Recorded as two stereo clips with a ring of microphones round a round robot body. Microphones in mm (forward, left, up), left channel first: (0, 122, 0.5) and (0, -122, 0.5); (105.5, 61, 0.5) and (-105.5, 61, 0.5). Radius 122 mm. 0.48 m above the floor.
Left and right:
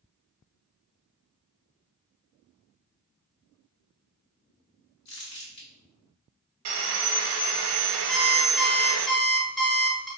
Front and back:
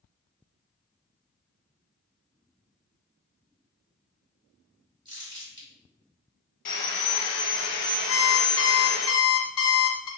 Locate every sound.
5.0 s crumpling: 120° left, 1.7 m
6.7 s sawing: 60° right, 0.7 m
8.1 s an alarm clock: 5° left, 1.2 m